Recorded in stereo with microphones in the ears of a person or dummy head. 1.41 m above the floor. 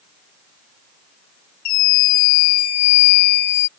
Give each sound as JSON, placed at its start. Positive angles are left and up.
{"t": 1.6, "sound": "a scream", "side_deg": 50}